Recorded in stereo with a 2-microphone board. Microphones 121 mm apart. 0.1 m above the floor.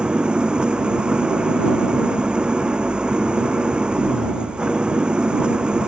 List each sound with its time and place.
0.0 s an engine running: 5° right (ahead or behind)